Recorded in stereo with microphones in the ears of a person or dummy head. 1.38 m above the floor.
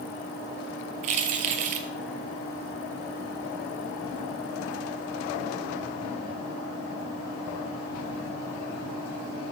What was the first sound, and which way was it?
Keys jangling, 45° right (ahead or behind).